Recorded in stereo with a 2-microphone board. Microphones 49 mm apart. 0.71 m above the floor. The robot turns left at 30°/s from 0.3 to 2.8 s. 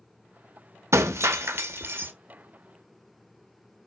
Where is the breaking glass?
95° right, 0.6 m; by 2.1 s 130° right, 0.6 m.